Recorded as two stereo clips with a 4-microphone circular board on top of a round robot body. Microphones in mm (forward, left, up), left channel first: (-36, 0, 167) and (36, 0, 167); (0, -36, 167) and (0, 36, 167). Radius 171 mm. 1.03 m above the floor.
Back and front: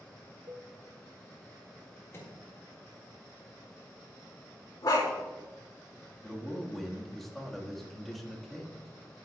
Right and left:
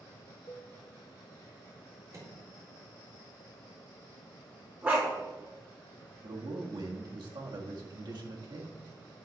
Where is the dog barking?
150° left, 3.5 m.